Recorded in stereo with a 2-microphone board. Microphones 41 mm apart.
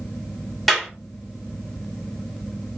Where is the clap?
5° left (ahead or behind), 1.5 m.